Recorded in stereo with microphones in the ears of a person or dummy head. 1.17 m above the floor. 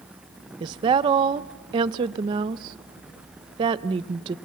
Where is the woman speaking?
25° right (ahead or behind), 0.6 m.